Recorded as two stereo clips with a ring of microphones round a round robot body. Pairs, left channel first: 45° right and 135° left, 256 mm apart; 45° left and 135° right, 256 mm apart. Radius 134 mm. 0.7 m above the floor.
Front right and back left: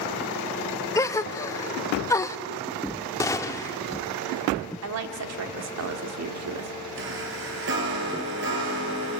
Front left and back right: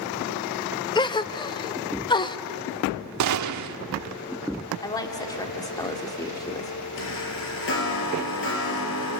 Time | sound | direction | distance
0.9 | a gasp | 10° left | 0.8 m
3.2 | a gunshot | 125° right | 1.2 m
4.8 | a woman speaking | 120° left | 2 m
7.0 | a chime | 90° left | 6 m